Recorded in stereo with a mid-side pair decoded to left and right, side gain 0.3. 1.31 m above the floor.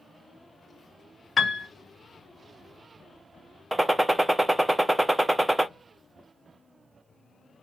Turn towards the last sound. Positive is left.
turn(degrees=-10)